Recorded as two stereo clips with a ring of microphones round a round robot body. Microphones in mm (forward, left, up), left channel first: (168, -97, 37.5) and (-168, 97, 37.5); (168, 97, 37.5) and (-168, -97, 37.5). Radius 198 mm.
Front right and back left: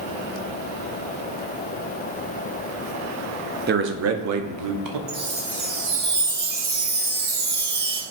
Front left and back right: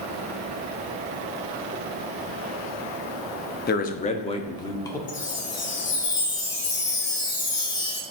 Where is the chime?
95° left, 2.5 m.